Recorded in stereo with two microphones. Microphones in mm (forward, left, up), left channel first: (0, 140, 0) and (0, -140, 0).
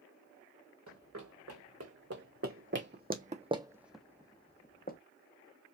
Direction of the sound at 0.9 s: 70° right (ahead or behind).